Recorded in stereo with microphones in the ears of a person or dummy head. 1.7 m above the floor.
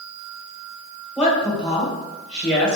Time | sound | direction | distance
1.2 | a woman speaking | 10° left (ahead or behind) | 1.3 m